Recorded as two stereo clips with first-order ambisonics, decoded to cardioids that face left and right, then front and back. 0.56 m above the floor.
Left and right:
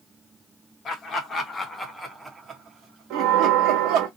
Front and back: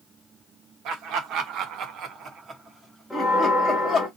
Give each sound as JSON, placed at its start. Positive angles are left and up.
{"t": 0.8, "sound": "laughter", "azimuth_deg": 145, "distance_m": 1.2}
{"t": 3.1, "sound": "a bell", "azimuth_deg": -90, "distance_m": 1.2}